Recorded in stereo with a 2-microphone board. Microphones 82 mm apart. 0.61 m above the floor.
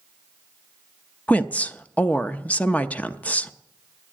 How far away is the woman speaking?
About 0.5 m.